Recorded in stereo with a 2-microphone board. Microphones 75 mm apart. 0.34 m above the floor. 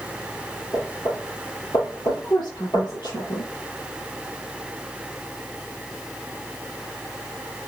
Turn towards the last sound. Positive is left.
turn(degrees=75)  # may be behind; listen again after turning